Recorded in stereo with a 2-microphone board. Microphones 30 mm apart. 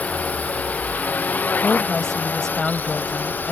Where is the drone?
50° left (ahead or behind); by 3.5 s 75° left (ahead or behind).